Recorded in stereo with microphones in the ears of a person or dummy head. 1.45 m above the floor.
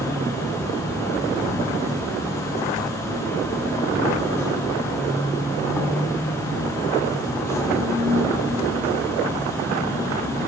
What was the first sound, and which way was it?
An insect, 15° left (ahead or behind).